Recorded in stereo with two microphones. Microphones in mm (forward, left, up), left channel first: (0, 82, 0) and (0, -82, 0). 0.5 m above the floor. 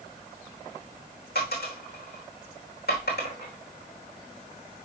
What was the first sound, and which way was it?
A dropped coin, 75° left (ahead or behind).